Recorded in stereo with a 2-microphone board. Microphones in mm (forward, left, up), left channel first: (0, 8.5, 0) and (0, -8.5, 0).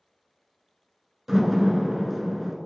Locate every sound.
1.3 s a door slam: 20° right (ahead or behind), 1.0 m